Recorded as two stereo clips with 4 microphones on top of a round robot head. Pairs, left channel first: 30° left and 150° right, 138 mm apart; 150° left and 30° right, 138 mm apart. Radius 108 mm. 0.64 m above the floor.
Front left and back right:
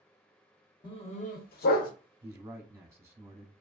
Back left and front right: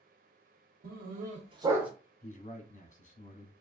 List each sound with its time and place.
0.8 s a dog barking: 25° right, 0.9 m; by 1.9 s 55° left, 0.8 m
2.2 s a man speaking: 155° left, 1.1 m